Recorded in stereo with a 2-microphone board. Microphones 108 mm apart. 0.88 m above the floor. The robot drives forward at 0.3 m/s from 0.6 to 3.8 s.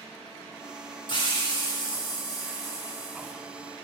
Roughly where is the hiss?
Left.